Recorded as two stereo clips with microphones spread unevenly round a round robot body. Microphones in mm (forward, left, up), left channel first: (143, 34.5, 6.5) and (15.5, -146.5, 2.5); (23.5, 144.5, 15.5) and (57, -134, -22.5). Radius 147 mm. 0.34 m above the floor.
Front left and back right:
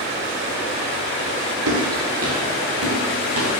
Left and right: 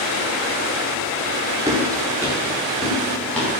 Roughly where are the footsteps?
Behind.